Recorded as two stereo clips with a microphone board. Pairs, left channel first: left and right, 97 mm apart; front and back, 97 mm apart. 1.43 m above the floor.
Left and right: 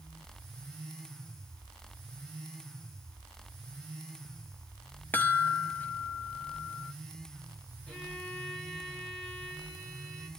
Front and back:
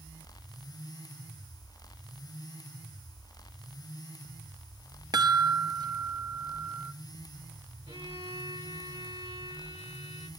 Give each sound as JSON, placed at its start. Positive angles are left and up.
{"t": 5.1, "sound": "a chime", "azimuth_deg": 155, "distance_m": 0.8}
{"t": 7.9, "sound": "a violin", "azimuth_deg": 170, "distance_m": 8.0}